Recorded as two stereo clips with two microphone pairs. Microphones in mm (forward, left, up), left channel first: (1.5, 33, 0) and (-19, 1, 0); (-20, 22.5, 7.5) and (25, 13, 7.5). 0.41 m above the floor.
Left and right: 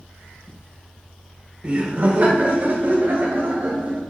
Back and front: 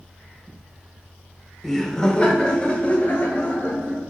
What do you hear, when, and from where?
1.6 s laughter: 105° right, 0.9 m; by 4.0 s 150° right, 2.0 m